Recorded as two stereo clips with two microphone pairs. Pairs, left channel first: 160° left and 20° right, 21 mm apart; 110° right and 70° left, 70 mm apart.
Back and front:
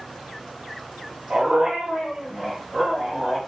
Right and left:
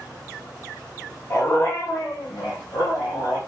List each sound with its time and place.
1.3 s a dog barking: 65° right, 1.4 m; by 3.4 s 95° right, 2.5 m